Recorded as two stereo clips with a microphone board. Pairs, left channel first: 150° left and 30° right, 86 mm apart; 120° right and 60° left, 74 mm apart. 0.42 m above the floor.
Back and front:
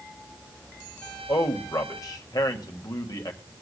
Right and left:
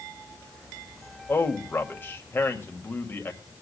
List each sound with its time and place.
1.3 s a man speaking: 175° right, 1.5 m